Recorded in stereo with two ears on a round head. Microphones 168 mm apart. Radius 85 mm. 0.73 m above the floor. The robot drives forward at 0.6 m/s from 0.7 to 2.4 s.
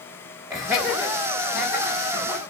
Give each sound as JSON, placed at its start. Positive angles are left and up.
{"t": 0.5, "sound": "laughter", "side_deg": -20, "distance_m": 1.2}